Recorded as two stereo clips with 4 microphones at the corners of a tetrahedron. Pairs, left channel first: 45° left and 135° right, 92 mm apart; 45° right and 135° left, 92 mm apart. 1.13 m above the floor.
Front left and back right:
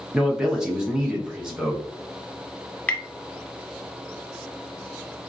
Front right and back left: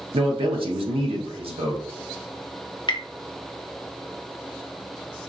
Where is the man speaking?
140° left, 1.1 m.